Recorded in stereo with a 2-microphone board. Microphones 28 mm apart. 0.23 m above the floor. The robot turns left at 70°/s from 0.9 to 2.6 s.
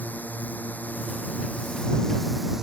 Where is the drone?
105° left; by 2.6 s 15° right.